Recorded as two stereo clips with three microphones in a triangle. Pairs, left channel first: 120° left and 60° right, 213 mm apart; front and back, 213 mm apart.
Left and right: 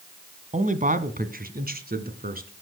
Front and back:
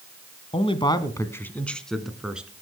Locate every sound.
0.5 s a man speaking: 40° right, 1.5 m; by 2.5 s 95° right, 2.5 m